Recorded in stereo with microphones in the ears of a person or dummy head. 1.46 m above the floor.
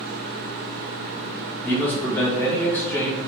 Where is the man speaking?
5° left (ahead or behind), 1.4 m.